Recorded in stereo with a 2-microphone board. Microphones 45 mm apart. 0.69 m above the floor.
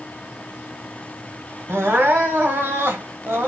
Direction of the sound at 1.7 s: 65° right (ahead or behind).